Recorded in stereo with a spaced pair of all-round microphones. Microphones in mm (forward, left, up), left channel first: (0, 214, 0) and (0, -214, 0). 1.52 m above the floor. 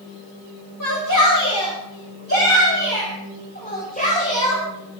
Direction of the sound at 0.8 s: 45° left (ahead or behind).